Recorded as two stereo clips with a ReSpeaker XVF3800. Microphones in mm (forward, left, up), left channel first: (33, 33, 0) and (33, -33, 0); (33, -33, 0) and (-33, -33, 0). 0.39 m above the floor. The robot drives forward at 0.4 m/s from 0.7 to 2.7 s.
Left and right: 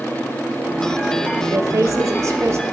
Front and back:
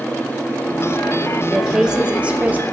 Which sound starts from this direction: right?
A woman speaking, at 1.5 s.